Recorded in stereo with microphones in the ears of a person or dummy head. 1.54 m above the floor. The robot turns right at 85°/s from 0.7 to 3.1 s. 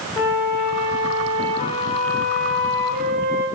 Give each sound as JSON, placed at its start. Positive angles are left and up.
{"t": 0.2, "sound": "a flute", "azimuth_deg": 45, "distance_m": 0.8}